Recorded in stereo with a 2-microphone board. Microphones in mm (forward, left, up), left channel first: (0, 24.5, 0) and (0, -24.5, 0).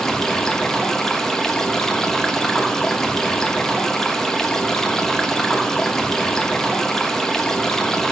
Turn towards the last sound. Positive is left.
turn(degrees=10)  # may be behind; listen again after turning